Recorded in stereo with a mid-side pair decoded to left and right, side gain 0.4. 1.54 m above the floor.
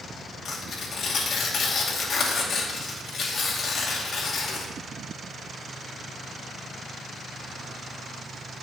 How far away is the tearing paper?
About 2.5 m.